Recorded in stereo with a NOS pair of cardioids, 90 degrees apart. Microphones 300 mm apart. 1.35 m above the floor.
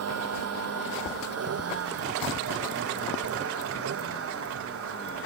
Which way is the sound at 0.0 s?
55° right.